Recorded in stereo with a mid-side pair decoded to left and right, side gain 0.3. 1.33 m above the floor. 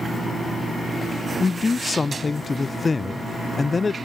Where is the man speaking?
35° left, 0.6 m.